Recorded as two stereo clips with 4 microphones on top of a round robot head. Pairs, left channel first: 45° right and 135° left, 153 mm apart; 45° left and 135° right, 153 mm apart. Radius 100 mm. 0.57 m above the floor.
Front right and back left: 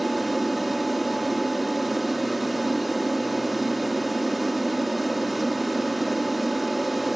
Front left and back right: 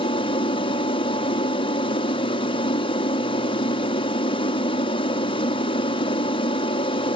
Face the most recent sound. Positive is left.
turn(degrees=45)